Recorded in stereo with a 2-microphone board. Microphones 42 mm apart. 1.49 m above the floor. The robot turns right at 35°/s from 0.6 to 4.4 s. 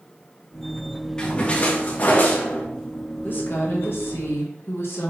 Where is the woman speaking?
55° left, 1.3 m; by 5.1 s 95° left, 1.3 m.